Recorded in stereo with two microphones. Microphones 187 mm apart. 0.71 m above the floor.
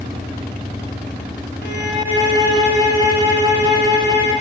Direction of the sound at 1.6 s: 80° right.